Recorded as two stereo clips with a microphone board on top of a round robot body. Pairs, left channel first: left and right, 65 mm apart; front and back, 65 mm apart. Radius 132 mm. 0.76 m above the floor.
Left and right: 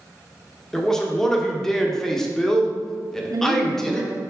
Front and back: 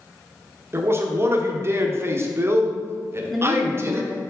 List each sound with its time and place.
0.7 s a man speaking: 170° left, 1.2 m
3.3 s a woman speaking: 90° right, 0.8 m